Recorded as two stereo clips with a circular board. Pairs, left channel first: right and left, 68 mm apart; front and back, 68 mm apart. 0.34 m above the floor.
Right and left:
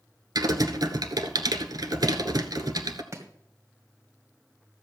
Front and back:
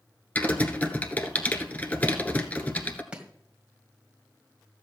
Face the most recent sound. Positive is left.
turn(degrees=110)